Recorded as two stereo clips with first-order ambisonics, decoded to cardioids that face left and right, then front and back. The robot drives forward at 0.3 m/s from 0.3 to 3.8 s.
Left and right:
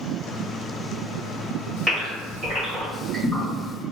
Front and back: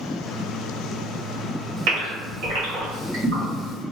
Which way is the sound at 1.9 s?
170° left.